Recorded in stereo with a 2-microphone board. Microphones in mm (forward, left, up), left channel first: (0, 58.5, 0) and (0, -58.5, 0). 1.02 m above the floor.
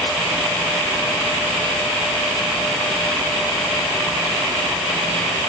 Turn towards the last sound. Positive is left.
No sound to turn to.